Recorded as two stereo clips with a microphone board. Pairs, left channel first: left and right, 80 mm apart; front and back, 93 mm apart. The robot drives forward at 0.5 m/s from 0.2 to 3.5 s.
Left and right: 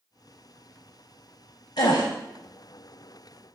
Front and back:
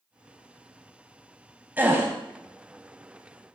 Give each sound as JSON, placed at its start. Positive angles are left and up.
{"t": 1.8, "sound": "a gasp", "azimuth_deg": 110, "distance_m": 1.2}